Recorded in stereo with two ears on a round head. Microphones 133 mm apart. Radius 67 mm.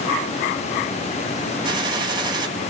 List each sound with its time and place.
1.6 s a gunshot: 30° right (ahead or behind), 1.8 m